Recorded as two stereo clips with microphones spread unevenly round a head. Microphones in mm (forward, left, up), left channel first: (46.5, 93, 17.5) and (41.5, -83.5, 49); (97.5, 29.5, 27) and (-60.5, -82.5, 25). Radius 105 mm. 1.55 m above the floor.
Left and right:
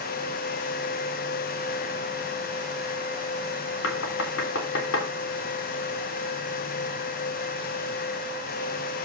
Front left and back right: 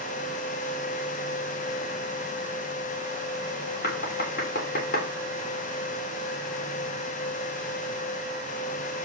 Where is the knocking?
85° left, 3 m.